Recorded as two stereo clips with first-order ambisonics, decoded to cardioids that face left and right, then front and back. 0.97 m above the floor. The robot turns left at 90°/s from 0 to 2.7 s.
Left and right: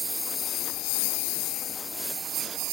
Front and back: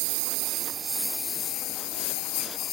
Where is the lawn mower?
175° right; by 2.7 s 55° right.